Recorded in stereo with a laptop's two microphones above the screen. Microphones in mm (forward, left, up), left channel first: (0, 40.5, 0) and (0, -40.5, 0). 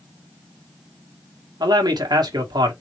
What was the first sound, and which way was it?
A man speaking, 65° right (ahead or behind).